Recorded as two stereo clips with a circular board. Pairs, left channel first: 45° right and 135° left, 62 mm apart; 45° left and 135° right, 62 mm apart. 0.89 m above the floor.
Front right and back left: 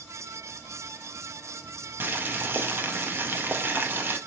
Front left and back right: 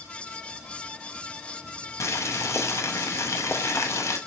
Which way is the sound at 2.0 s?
80° left.